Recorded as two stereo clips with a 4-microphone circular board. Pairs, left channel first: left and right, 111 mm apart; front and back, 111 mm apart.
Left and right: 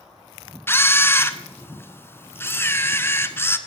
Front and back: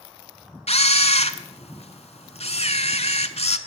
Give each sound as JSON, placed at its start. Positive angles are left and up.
{"t": 0.7, "sound": "a camera shutter", "azimuth_deg": 20, "distance_m": 0.7}